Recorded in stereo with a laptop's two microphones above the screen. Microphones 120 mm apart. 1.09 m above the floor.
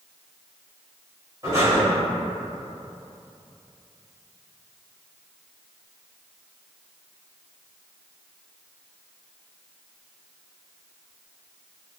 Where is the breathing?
25° right (ahead or behind), 1.5 m.